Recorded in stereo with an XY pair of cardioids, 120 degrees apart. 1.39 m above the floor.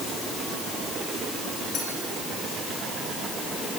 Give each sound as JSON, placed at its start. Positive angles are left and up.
{"t": 1.7, "sound": "a clink", "azimuth_deg": 60, "distance_m": 6.5}